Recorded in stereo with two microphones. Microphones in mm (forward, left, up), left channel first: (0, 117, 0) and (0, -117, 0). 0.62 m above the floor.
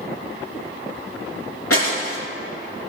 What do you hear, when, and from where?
1.7 s breaking glass: 75° left (ahead or behind), 3.5 m